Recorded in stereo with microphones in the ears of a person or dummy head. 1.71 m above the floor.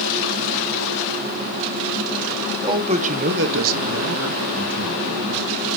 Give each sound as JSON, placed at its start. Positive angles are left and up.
{"t": 2.6, "sound": "a man speaking", "side_deg": -25, "distance_m": 1.5}